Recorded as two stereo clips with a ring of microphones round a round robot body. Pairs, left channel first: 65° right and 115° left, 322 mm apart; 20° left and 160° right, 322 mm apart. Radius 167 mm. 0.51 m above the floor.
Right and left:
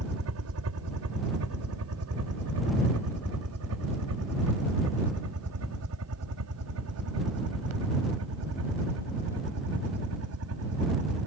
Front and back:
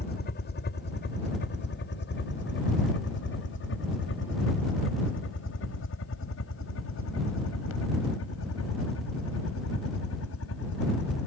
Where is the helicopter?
80° left; by 11.3 s 70° left.